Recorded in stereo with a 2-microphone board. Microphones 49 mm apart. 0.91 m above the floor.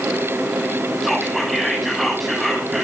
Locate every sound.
1.0 s whispering: 5° left (ahead or behind), 7.5 m